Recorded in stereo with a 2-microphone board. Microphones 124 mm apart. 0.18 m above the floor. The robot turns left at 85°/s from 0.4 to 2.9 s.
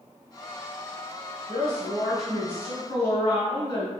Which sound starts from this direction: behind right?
A woman speaking, at 1.5 s.